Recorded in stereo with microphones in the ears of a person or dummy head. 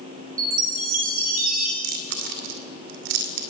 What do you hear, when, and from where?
0.4 s a chime: 40° right (ahead or behind), 4 m
1.8 s chewing: 50° right (ahead or behind), 2.5 m